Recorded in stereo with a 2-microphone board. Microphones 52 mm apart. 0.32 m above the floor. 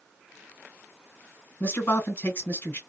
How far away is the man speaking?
About 3 m.